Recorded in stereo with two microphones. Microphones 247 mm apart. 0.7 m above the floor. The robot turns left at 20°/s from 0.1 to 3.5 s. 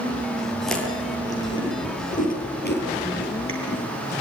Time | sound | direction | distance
0.7 | chewing | centre (ahead or behind) | 7 m